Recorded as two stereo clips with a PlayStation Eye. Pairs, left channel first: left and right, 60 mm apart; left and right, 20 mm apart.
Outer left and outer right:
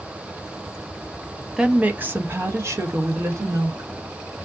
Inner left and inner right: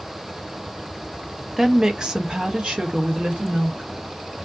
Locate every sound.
1.6 s a woman speaking: 10° right (ahead or behind), 0.5 m; by 3.9 s 60° right (ahead or behind), 1.4 m